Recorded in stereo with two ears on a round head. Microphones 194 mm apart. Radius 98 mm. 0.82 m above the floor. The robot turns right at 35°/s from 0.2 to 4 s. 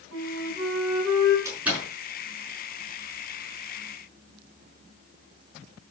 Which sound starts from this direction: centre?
A door slam, at 1.4 s.